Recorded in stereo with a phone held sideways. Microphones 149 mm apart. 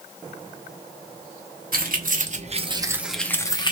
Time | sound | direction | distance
1.7 | keys jangling | 75° right (ahead or behind) | 0.9 m